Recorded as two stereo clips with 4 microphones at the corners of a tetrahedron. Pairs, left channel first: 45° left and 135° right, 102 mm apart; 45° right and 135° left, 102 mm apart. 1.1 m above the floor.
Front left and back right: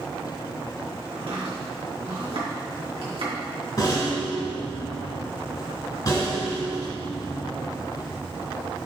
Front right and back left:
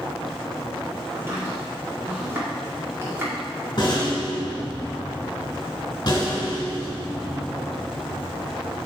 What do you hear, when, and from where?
1.1 s chopping: 160° right, 2 m
3.8 s a rattle: straight ahead, 2.5 m